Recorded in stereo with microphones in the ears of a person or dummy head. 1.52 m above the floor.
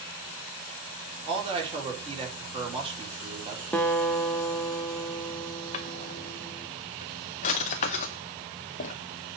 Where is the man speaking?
25° right (ahead or behind), 4 m.